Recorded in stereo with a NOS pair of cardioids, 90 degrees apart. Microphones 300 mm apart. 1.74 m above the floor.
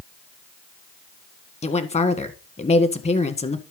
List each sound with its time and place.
1.6 s a woman speaking: 20° left, 1.5 m